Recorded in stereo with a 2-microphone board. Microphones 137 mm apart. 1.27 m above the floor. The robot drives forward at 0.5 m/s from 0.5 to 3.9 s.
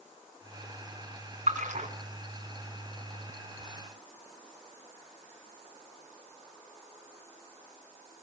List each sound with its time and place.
1.5 s a splash: 70° right (ahead or behind), 2.5 m; by 1.9 s 65° right (ahead or behind), 2.5 m